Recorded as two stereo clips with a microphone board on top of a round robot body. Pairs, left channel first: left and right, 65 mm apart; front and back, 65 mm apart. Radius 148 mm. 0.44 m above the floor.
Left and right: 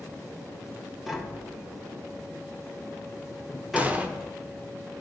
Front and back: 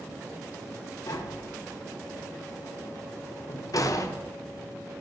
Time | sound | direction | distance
1.1 | tapping | 5° right | 1.5 m
3.8 | an explosion | 25° right | 1.1 m